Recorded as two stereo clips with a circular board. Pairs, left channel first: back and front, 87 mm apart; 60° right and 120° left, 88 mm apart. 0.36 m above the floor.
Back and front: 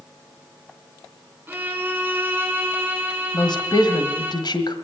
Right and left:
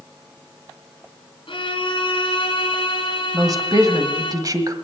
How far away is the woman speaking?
About 1.7 m.